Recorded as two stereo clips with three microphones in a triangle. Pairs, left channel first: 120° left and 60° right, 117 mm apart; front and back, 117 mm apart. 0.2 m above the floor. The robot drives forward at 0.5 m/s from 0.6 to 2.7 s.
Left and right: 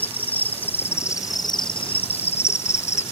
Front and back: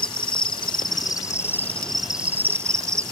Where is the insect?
45° left; by 3.1 s 115° left.